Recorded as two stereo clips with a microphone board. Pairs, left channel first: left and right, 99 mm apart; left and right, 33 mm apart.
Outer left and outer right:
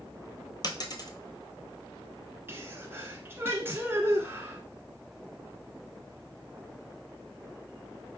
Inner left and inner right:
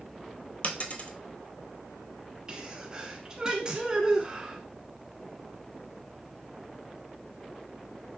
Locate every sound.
0.6 s a dropped coin: 45° left (ahead or behind), 0.6 m
2.5 s a sneeze: 20° right (ahead or behind), 1.3 m